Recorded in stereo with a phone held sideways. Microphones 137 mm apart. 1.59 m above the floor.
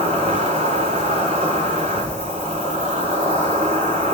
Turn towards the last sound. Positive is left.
turn(degrees=-55)  # may be behind; listen again after turning